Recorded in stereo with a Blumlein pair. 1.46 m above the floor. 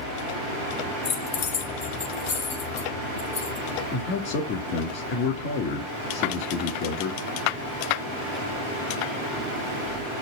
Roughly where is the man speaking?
Ahead left.